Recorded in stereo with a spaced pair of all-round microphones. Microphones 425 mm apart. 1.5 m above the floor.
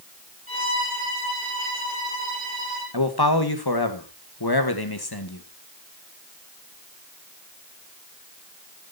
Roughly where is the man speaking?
Left.